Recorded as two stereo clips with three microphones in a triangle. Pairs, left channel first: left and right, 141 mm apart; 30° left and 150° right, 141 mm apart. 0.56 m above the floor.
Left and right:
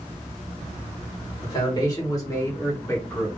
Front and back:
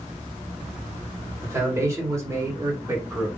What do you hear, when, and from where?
1.4 s a man speaking: 145° left, 2.5 m; by 3.3 s 155° left, 1.6 m